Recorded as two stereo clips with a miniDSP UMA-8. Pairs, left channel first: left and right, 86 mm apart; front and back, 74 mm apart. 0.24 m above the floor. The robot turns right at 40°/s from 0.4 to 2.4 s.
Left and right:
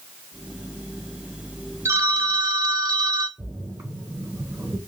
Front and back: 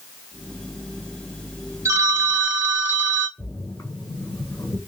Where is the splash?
35° right, 2.5 m.